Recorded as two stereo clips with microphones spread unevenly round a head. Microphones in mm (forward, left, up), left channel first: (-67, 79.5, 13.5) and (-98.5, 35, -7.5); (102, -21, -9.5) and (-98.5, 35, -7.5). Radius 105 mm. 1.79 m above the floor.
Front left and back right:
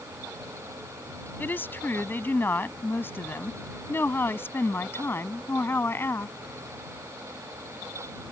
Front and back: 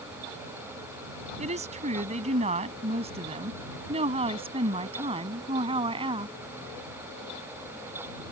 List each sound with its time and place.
1.4 s a woman speaking: 105° left; by 6.3 s 95° left